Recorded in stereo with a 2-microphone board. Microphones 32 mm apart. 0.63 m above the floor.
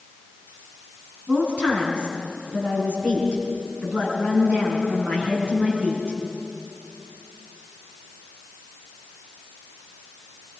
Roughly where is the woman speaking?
Right.